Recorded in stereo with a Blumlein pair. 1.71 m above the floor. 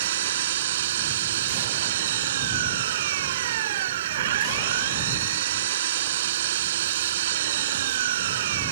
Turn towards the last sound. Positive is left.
turn(degrees=-55)